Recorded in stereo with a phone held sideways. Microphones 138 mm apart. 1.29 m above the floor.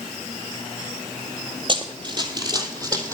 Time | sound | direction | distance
1.7 | running footsteps | 35° right (ahead or behind) | 1.6 m